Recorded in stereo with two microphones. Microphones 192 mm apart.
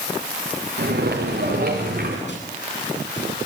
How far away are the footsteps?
About 7 m.